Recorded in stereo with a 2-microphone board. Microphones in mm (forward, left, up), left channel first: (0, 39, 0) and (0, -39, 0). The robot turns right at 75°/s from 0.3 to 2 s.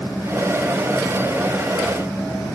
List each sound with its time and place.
Only background noise.